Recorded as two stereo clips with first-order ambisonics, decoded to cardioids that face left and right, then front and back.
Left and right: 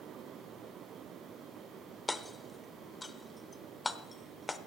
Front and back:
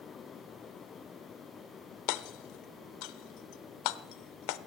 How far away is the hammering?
About 0.5 m.